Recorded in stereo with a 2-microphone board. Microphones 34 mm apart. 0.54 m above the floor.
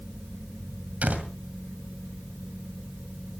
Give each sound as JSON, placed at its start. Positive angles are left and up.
{"t": 1.0, "sound": "a door slam", "side_deg": -45, "distance_m": 2.0}